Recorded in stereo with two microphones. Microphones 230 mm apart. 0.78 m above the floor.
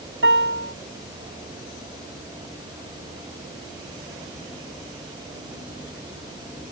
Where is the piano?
60° right (ahead or behind).